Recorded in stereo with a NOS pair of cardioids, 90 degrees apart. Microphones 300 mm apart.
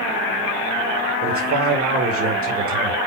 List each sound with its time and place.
1.2 s a man speaking: 50° right, 3 m